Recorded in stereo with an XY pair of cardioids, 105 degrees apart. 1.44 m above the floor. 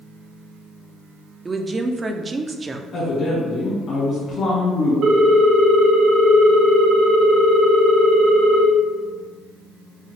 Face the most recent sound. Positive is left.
turn(degrees=-65)